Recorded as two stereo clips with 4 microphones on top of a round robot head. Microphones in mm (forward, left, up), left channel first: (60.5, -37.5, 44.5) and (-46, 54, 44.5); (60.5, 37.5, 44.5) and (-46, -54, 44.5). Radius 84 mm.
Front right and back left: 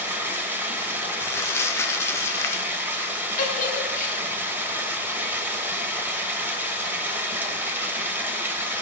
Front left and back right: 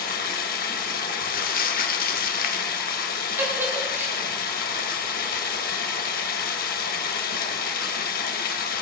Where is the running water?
65° left, 1.5 m.